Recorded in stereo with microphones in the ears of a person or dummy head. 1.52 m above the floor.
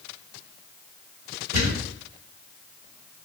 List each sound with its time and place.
1.5 s a thud: 40° right (ahead or behind), 1.5 m